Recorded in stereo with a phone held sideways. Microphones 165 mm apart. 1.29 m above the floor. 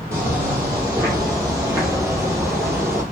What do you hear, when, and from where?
0.1 s footsteps: 20° right (ahead or behind), 1.7 m; by 3.0 s 15° right (ahead or behind), 1.4 m